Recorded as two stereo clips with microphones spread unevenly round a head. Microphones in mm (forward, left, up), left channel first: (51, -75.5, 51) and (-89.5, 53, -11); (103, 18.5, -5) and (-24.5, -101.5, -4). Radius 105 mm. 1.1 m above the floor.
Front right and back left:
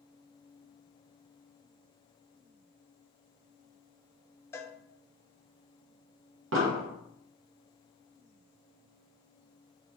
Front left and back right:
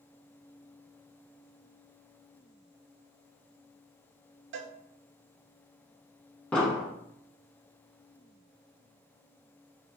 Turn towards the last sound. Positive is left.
turn(degrees=125)